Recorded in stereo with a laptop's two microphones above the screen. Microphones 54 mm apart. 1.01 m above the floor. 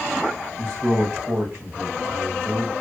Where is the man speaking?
45° right (ahead or behind), 2.5 m.